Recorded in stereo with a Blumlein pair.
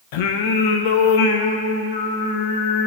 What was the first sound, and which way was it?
Singing, 50° left.